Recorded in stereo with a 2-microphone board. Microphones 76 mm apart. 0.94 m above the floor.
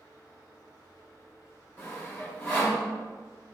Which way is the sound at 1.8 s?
25° left (ahead or behind).